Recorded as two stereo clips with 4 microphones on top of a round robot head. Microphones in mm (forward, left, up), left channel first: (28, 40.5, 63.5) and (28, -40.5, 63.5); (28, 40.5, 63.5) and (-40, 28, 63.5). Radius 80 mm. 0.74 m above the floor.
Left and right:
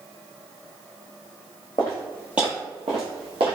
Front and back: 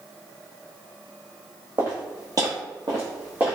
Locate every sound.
1.8 s footsteps: 150° left, 1.0 m; by 3.6 s 90° right, 1.3 m